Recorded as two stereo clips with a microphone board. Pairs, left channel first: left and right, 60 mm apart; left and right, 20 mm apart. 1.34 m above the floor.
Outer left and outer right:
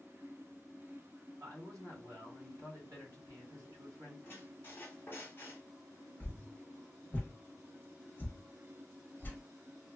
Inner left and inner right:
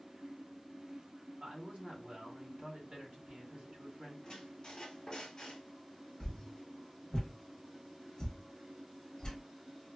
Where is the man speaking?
70° right (ahead or behind), 1.7 m.